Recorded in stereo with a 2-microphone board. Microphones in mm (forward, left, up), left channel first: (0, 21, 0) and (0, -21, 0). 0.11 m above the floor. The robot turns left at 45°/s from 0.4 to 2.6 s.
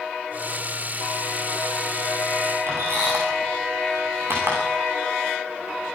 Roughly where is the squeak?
Right.